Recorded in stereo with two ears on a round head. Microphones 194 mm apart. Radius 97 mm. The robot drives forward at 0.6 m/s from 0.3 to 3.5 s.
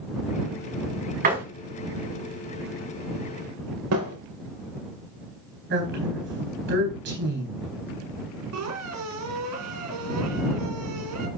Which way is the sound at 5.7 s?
55° right (ahead or behind).